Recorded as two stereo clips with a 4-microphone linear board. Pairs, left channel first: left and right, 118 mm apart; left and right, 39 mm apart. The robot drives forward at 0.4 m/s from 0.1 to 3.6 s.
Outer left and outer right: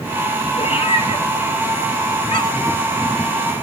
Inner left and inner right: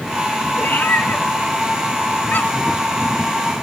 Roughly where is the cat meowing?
Left.